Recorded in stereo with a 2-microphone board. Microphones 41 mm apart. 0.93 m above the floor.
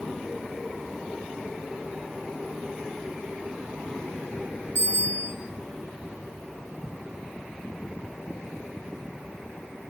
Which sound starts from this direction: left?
A bicycle bell, at 4.8 s.